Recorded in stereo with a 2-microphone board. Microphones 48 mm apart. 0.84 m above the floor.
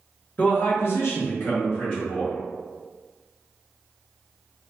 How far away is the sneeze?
No sneeze in this recording.